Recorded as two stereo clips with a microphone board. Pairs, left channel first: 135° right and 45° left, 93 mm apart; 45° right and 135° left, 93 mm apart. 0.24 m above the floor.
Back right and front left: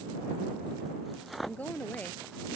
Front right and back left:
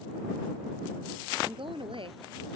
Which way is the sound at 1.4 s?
155° left.